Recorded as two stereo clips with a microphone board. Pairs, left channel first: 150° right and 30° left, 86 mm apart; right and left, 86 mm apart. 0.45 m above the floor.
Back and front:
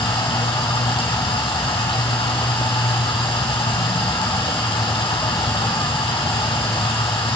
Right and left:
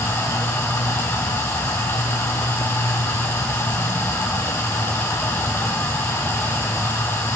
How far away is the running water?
About 2 m.